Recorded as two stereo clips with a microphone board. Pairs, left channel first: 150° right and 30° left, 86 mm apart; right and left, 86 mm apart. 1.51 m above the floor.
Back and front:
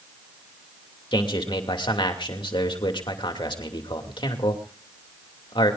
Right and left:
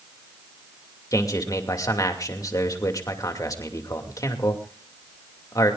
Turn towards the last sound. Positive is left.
turn(degrees=-135)